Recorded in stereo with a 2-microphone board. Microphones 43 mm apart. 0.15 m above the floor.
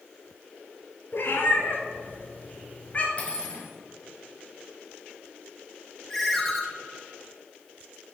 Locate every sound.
1.1 s a cat meowing: 60° left (ahead or behind), 1.6 m; by 3.1 s 35° left (ahead or behind), 1.8 m
3.2 s cutlery clinking: 30° left (ahead or behind), 1.9 m
6.1 s a ringtone: 5° left (ahead or behind), 1.5 m